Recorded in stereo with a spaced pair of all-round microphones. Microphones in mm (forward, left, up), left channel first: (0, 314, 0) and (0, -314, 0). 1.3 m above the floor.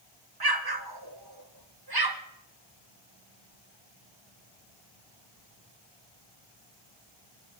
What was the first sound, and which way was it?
An explosion, 35° right (ahead or behind).